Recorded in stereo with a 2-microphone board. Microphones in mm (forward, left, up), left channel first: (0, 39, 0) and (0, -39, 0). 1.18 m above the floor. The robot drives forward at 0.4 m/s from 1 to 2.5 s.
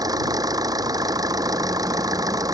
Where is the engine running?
55° right (ahead or behind); by 2.6 s 50° right (ahead or behind).